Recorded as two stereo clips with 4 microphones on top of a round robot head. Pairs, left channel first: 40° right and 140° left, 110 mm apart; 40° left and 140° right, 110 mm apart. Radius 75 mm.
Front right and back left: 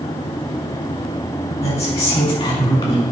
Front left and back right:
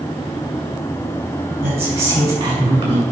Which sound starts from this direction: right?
A woman speaking, at 1.6 s.